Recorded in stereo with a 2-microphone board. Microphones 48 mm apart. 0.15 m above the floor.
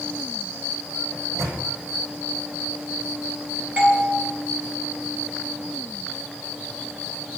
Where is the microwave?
80° right, 4 m.